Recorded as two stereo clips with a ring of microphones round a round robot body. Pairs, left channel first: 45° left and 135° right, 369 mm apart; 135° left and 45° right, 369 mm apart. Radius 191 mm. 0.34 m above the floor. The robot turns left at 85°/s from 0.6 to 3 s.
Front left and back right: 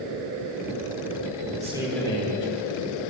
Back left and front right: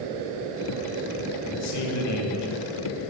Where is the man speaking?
170° left, 1.5 m; by 3.1 s 45° left, 1.5 m.